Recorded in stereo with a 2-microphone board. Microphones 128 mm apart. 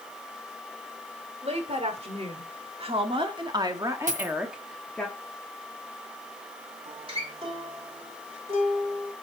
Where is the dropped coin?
85° right, 1.4 m.